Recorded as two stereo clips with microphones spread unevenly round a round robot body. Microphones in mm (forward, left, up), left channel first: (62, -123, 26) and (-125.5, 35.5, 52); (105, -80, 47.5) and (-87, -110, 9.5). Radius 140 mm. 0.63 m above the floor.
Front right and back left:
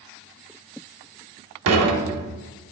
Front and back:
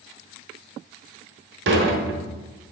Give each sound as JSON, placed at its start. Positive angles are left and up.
{"t": 1.7, "sound": "dishes clattering", "azimuth_deg": 165, "distance_m": 0.9}